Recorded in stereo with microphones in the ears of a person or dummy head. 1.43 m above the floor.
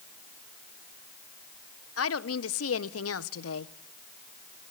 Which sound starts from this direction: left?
A woman speaking, at 2.0 s.